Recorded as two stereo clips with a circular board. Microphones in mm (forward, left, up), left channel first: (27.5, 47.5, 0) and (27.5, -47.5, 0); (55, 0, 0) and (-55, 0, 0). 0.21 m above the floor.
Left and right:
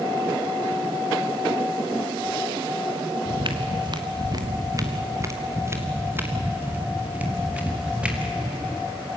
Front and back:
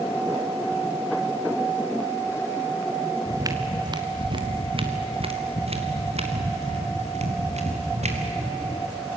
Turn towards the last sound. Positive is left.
turn(degrees=-175)